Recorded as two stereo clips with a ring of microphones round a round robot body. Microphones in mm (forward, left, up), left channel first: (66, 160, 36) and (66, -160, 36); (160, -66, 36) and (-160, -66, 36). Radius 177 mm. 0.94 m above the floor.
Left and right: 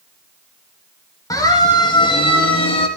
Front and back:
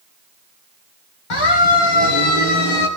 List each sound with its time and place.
1.3 s a siren: 10° left, 6 m; by 2.9 s 20° left, 6.5 m